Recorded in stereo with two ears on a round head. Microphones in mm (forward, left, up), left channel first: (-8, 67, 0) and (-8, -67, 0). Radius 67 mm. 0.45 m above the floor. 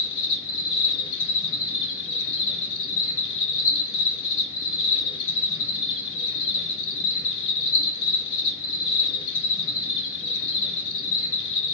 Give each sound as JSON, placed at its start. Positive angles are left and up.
{"t": 0.0, "sound": "an insect", "side_deg": 60, "distance_m": 1.3}